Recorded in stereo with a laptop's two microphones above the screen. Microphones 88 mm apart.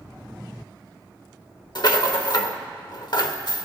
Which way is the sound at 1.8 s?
55° left (ahead or behind).